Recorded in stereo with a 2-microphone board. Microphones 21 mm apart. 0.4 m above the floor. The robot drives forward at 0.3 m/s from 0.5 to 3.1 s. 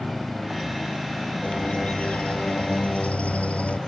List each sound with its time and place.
1.4 s a bird: 70° left (ahead or behind)